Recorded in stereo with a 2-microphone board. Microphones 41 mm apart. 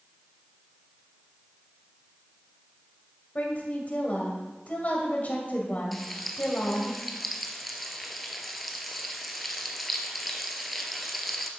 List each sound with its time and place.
3.4 s a woman speaking: 40° left (ahead or behind), 2.5 m
5.9 s frying: centre (ahead or behind), 1.1 m